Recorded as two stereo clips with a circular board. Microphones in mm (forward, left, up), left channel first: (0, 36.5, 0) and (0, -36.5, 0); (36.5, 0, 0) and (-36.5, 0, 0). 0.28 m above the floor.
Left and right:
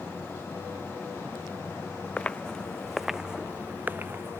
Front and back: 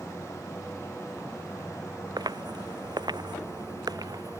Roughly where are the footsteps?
Behind.